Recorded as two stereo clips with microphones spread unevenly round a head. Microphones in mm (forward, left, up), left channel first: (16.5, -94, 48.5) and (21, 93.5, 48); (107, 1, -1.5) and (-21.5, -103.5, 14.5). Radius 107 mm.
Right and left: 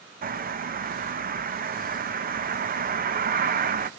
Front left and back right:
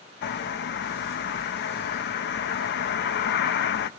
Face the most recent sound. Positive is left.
turn(degrees=50)